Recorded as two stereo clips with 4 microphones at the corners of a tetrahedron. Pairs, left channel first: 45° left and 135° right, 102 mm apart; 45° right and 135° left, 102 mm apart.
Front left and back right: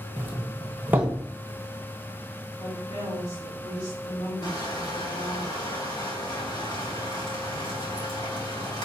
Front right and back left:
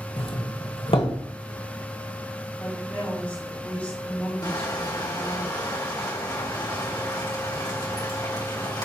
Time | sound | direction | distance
0.2 | a doorbell | 65° right | 1.2 m
2.6 | a woman speaking | 25° left | 3 m
4.4 | crushing | straight ahead | 2.5 m